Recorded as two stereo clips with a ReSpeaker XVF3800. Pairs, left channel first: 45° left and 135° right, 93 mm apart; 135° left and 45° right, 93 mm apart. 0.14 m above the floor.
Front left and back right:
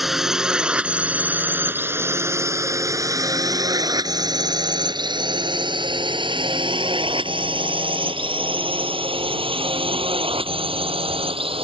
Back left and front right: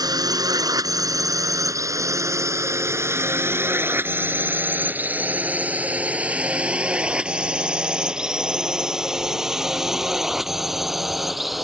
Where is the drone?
50° right; by 11.7 s 135° right.